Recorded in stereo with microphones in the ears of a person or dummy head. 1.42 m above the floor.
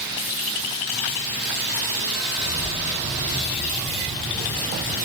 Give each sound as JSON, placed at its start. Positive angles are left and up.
{"t": 2.4, "sound": "keys jangling", "side_deg": -20, "distance_m": 1.8}